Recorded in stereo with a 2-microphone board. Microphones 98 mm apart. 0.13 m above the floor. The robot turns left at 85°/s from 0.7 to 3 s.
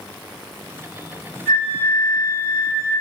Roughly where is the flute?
Centre.